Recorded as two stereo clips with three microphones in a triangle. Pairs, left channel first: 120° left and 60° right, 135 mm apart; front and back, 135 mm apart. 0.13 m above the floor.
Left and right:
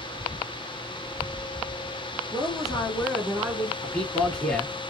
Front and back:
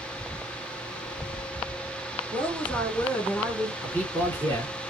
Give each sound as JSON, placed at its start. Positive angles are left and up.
{"t": 2.3, "sound": "a woman speaking", "azimuth_deg": 70, "distance_m": 2.0}
{"t": 3.8, "sound": "a man speaking", "azimuth_deg": 50, "distance_m": 1.5}